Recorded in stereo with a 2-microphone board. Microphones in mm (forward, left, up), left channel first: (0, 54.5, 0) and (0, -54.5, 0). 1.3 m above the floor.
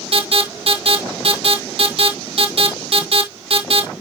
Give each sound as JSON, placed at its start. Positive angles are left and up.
{"t": 0.1, "sound": "an alarm", "side_deg": -55, "distance_m": 2.0}